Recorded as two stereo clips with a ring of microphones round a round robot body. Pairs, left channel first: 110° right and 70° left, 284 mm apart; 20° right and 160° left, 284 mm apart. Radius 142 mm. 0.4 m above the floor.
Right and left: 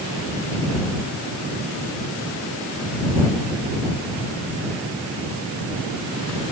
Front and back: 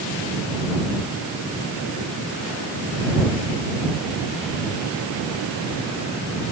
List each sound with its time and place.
Only background noise.